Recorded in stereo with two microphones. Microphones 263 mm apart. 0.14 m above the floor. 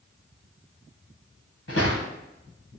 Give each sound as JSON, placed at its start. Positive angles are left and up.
{"t": 1.7, "sound": "footsteps", "side_deg": 60, "distance_m": 0.9}